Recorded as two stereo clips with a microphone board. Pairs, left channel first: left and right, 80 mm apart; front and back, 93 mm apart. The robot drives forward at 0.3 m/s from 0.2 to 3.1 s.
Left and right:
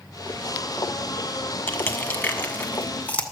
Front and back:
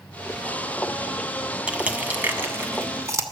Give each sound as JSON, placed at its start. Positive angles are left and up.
{"t": 1.7, "sound": "crushing", "azimuth_deg": 120, "distance_m": 1.0}